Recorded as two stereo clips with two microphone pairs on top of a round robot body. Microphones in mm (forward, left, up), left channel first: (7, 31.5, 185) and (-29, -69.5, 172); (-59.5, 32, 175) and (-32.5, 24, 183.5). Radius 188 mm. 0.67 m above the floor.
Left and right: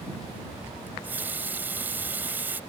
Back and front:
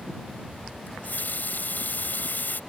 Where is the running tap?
175° left.